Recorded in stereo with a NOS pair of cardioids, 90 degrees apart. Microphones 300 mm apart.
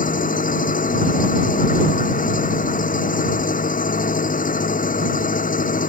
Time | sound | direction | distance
0.0 | an engine running | 25° left | ?